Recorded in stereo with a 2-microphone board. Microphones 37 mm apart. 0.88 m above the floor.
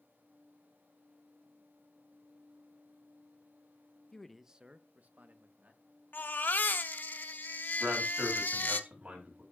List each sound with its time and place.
4.1 s a man speaking: 15° left (ahead or behind), 0.7 m; by 5.8 s 50° right (ahead or behind), 1.8 m
6.1 s a baby crying: 60° left (ahead or behind), 0.8 m
7.8 s a man speaking: 40° right (ahead or behind), 6 m